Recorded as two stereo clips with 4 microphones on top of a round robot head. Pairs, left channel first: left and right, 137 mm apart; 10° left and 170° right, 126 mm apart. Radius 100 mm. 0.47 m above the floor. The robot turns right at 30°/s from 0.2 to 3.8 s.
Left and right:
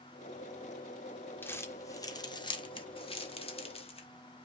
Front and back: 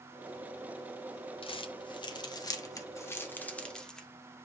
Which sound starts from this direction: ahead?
Crumpling, at 1.4 s.